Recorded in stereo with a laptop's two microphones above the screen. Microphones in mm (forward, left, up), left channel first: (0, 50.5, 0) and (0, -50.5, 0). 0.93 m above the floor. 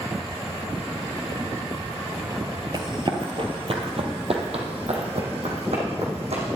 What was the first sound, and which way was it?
Running footsteps, 40° right (ahead or behind).